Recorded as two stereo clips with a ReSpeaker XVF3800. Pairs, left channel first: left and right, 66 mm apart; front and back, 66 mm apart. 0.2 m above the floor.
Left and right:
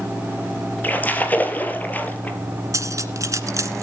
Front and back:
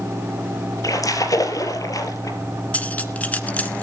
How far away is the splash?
About 2.5 m.